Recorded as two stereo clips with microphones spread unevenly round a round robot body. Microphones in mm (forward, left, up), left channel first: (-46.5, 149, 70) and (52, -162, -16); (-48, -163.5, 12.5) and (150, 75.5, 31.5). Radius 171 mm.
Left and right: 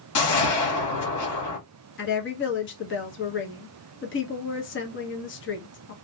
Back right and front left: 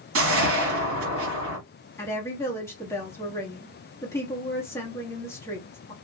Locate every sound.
0.1 s a whoosh: 80° left, 1.4 m
2.0 s a woman speaking: 160° left, 0.9 m